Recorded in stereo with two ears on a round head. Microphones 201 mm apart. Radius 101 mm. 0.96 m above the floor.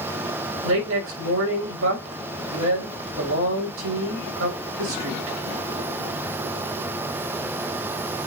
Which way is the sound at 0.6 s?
65° right (ahead or behind).